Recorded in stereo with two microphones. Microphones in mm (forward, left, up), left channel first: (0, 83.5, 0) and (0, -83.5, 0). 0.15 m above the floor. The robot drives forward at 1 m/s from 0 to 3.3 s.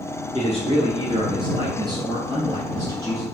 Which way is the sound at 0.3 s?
40° right (ahead or behind).